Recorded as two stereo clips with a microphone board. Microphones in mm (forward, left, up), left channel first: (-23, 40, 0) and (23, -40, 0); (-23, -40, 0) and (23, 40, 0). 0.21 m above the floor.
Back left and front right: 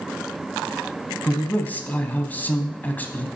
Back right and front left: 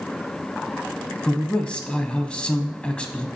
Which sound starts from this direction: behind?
A man speaking, at 1.2 s.